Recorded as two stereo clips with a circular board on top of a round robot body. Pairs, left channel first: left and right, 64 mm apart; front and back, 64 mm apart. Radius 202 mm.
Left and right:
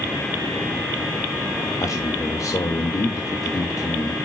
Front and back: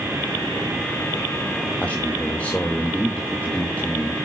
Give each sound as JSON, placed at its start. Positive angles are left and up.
{"t": 1.8, "sound": "a man speaking", "azimuth_deg": 70, "distance_m": 1.5}